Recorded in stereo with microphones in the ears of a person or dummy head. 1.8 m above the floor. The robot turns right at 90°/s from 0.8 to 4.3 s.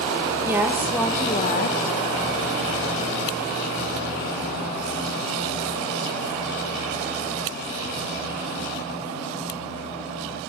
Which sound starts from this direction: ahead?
A woman speaking, at 0.5 s.